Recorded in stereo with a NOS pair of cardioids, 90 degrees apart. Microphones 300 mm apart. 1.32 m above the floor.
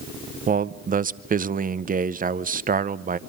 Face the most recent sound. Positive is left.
turn(degrees=-25)